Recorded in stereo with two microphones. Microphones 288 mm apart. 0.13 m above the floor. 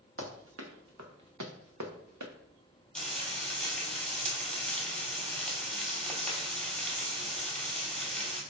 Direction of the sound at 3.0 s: 5° left (ahead or behind).